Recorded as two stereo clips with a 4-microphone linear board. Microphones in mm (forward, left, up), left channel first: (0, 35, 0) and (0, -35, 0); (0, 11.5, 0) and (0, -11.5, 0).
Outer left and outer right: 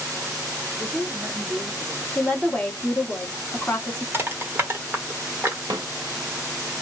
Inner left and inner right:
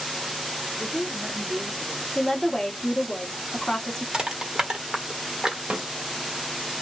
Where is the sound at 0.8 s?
15° left (ahead or behind), 0.9 m; by 2.0 s 35° right (ahead or behind), 1.4 m.